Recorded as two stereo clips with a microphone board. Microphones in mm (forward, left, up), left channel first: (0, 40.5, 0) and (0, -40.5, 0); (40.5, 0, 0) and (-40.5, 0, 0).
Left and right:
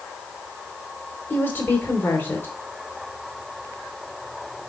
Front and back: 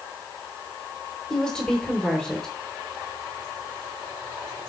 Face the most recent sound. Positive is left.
turn(degrees=70)